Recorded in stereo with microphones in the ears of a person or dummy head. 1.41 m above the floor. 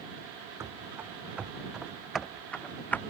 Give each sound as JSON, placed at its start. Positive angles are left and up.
{"t": 0.6, "sound": "running footsteps", "side_deg": -15}